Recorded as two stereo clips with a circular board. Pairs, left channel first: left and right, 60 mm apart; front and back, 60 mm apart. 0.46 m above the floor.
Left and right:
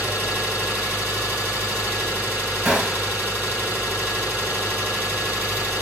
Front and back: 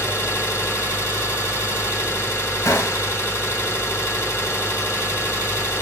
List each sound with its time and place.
0.0 s an engine running: 40° right, 1.8 m
2.6 s a gunshot: 25° right, 1.1 m